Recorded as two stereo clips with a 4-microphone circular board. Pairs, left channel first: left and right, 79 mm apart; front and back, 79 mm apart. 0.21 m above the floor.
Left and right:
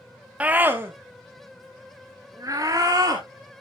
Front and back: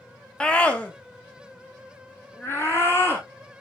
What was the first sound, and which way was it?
A scream, 55° right.